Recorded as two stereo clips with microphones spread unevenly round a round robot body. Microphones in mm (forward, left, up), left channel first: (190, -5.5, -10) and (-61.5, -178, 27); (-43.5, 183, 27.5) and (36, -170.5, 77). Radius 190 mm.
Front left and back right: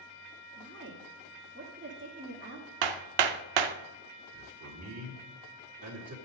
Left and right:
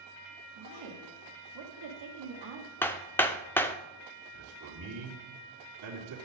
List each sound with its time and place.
0.6 s a woman speaking: 95° right, 1.8 m
2.8 s hammering: 170° right, 0.5 m
4.3 s a man speaking: 110° right, 2.5 m